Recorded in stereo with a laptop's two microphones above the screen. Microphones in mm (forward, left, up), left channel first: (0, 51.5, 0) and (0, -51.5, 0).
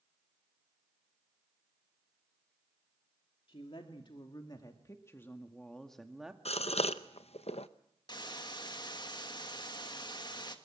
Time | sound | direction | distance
3.5 | a woman speaking | 60° left (ahead or behind) | 2 m
6.5 | a gasp | 75° left (ahead or behind) | 0.7 m
8.1 | a hiss | 45° left (ahead or behind) | 1.5 m